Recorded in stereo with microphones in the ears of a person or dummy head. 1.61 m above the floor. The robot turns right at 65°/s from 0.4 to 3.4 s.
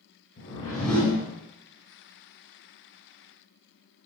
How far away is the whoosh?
About 0.9 m.